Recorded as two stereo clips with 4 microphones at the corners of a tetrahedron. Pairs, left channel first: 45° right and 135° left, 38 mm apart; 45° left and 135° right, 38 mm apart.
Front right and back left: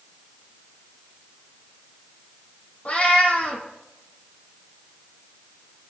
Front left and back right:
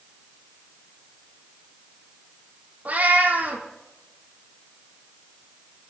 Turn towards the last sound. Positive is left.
turn(degrees=-95)